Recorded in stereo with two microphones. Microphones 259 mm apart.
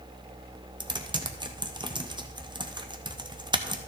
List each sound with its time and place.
0.8 s typing on a keyboard: 15° right (ahead or behind), 0.8 m